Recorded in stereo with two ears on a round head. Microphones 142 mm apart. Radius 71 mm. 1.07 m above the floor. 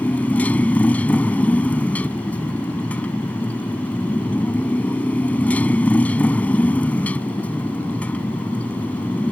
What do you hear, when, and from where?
0.0 s a motorcycle: 10° left (ahead or behind)